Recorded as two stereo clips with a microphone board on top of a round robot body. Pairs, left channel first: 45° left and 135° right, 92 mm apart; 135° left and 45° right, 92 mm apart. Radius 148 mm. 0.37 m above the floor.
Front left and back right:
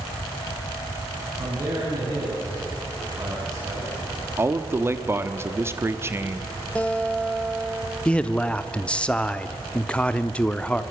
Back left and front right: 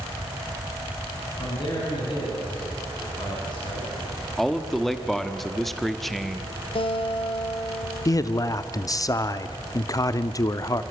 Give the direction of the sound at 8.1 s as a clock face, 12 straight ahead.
8 o'clock.